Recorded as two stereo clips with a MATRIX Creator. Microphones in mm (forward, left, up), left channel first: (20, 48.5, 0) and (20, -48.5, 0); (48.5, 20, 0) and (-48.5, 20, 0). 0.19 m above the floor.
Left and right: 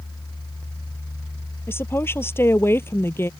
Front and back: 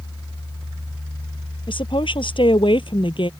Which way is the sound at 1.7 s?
25° left.